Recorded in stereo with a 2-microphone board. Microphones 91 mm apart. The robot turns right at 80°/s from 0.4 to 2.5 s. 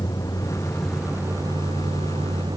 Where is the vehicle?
140° left; by 2.6 s 50° right.